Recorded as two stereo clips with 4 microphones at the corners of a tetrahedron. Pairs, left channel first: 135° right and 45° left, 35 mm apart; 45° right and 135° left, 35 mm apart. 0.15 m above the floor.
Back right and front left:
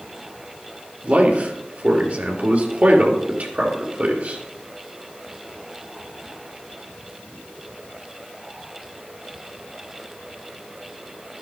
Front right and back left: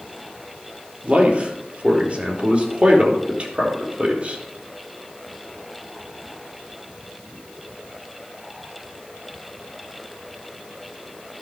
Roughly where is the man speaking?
Left.